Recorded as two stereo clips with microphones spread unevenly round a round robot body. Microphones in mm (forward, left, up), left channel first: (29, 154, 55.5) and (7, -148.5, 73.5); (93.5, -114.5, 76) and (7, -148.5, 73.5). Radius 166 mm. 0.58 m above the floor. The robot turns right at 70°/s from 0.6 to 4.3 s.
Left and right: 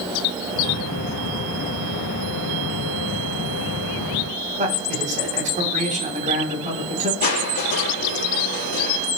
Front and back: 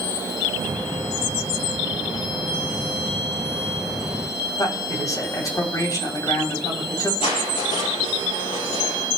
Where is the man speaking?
30° right, 4 m.